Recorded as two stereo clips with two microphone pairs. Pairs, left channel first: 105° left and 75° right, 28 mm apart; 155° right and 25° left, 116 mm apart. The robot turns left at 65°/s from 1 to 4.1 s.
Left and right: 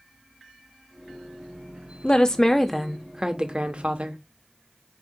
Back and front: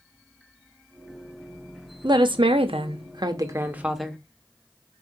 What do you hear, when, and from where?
2.0 s a woman speaking: 65° left, 0.7 m; by 4.2 s 70° right, 0.7 m